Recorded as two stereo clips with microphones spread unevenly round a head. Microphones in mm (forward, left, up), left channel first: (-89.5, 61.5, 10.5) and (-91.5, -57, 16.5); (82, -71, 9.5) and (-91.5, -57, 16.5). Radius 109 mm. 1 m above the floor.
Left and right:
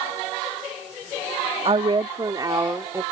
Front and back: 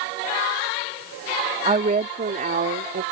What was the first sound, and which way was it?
A woman speaking, 130° right.